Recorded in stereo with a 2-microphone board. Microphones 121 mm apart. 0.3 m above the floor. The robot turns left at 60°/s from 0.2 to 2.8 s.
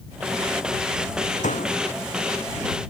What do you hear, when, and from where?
1.4 s a door slam: 85° left; by 1.8 s 70° left (ahead or behind)